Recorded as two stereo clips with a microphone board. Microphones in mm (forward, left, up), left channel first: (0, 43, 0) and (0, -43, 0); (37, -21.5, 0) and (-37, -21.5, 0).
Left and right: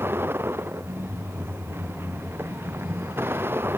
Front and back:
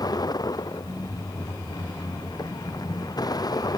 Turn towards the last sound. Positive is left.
turn(degrees=-25)